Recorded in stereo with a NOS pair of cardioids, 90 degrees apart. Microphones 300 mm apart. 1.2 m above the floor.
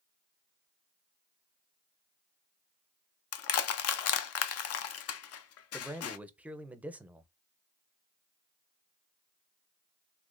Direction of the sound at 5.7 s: 5° right.